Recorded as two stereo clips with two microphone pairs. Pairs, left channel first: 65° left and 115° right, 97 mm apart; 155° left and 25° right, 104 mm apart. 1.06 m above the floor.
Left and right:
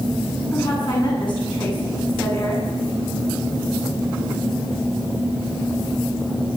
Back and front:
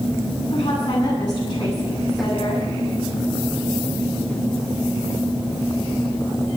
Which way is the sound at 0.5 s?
110° left.